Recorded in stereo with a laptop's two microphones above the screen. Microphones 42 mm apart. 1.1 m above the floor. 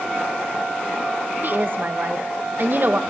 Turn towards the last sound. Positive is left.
turn(degrees=-50)  # may be behind; listen again after turning